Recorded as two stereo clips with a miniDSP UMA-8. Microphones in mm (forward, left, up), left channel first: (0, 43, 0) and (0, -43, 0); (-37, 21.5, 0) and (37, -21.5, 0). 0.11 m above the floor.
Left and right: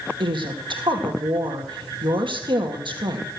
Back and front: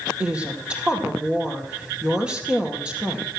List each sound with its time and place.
0.2 s a woman speaking: 105° right, 2.5 m